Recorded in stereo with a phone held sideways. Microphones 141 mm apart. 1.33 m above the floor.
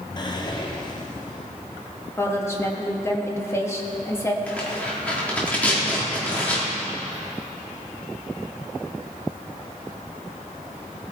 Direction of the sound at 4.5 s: 10° left (ahead or behind).